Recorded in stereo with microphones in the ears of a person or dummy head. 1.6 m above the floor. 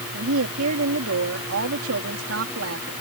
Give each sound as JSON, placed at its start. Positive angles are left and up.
{"t": 0.1, "sound": "a woman speaking", "side_deg": -85}